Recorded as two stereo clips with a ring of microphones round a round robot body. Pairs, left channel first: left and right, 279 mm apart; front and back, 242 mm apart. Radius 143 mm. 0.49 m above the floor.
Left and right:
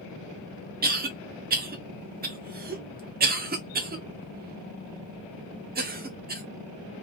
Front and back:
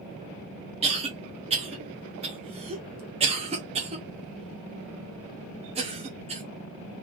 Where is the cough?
130° right, 1.3 m.